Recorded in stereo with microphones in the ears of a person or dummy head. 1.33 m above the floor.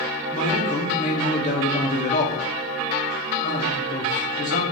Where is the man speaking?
35° left (ahead or behind), 0.8 m.